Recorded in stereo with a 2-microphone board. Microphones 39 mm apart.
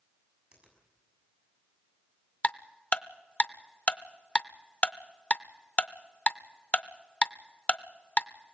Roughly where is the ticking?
Left.